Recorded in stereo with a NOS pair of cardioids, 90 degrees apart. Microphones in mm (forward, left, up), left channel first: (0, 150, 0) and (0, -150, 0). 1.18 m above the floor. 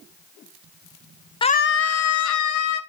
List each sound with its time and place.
1.4 s a scream: 15° left, 0.7 m; by 2.8 s 70° left, 2.0 m